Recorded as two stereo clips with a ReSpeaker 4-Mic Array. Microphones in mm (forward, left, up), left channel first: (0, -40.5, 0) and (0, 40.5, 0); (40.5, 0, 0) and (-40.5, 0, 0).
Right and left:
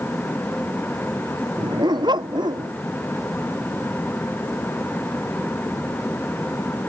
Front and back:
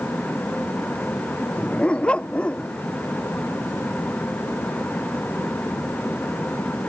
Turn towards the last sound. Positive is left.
turn(degrees=75)